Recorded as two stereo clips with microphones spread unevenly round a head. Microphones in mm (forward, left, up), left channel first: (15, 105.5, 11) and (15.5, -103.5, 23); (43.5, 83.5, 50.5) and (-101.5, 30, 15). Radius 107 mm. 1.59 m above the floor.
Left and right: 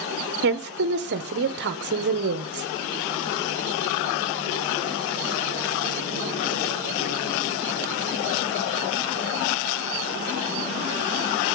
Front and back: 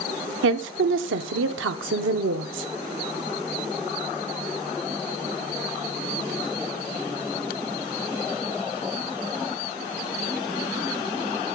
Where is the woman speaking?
135° right, 0.9 m.